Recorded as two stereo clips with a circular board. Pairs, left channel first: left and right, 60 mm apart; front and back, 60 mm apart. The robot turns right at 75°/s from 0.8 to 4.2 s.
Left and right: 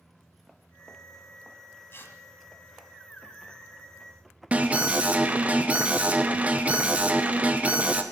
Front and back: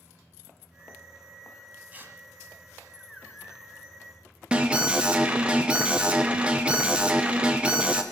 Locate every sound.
1.9 s tearing paper: 125° left, 1.5 m; by 2.2 s 145° left, 1.5 m
4.5 s an alarm: 125° right, 0.9 m